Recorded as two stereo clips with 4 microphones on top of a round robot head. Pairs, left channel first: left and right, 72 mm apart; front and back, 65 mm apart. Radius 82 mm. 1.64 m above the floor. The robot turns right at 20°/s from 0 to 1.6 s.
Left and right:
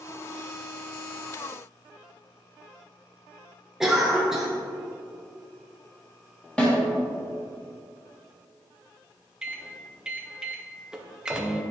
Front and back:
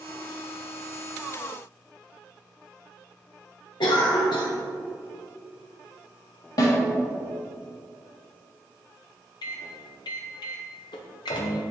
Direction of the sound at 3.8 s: 5° right.